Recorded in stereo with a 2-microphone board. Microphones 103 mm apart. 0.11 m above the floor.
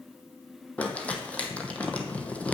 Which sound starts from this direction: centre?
Crumpling, at 0.8 s.